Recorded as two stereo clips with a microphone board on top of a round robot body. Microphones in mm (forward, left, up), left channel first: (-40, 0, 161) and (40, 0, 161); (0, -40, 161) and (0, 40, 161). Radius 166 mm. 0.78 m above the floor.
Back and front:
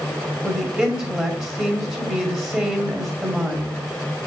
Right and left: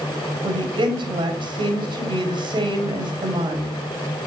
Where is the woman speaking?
70° left, 2 m.